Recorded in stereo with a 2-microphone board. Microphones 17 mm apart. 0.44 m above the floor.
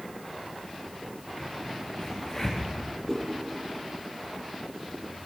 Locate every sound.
1.4 s a crack: 10° left (ahead or behind), 6.5 m
3.1 s a whoosh: 5° left (ahead or behind), 9 m